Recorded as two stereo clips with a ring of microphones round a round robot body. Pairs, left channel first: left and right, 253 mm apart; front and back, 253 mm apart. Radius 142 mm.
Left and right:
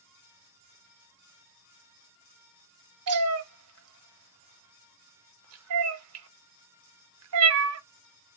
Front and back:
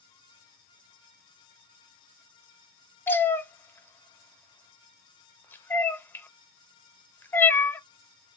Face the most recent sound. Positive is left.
turn(degrees=-80)